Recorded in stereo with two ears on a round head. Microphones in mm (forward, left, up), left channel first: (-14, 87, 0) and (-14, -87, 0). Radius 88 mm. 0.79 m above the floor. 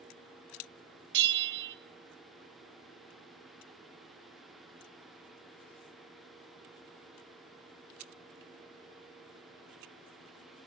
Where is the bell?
65° right (ahead or behind), 0.8 m.